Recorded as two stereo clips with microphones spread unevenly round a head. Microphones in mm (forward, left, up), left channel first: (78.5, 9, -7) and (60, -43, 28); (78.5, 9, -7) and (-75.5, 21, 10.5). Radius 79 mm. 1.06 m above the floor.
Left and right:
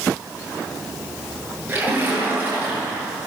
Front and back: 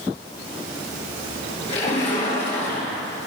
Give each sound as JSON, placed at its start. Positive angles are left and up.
{"t": 1.7, "sound": "a splash", "azimuth_deg": -60, "distance_m": 7.5}